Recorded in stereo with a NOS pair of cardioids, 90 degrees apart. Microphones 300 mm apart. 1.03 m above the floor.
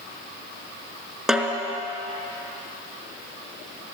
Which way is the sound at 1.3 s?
Straight ahead.